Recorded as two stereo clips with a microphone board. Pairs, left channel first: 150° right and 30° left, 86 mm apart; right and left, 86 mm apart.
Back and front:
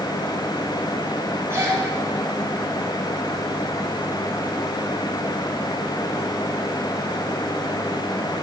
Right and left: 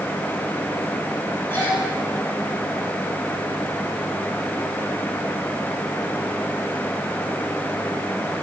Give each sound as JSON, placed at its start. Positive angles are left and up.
{"t": 1.5, "sound": "a gasp", "azimuth_deg": -25, "distance_m": 3.5}